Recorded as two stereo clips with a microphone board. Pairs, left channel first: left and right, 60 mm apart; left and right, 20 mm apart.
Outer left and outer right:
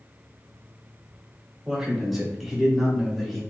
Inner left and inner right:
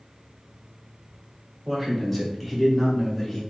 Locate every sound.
1.6 s a man speaking: 5° right (ahead or behind), 3.5 m; by 3.4 s centre (ahead or behind), 2.5 m